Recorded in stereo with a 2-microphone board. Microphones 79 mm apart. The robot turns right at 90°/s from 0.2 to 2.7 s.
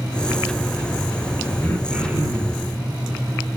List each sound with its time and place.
1.6 s throat clearing: 155° left, 5 m; by 2.7 s 110° right, 5 m